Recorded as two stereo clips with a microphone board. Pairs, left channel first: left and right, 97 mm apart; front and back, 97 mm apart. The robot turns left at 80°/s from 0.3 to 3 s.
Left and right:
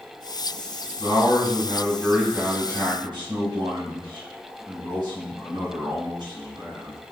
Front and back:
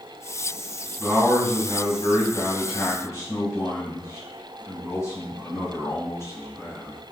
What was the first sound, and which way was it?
A man speaking, 105° left.